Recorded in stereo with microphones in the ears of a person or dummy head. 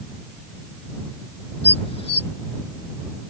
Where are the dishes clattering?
30° left (ahead or behind).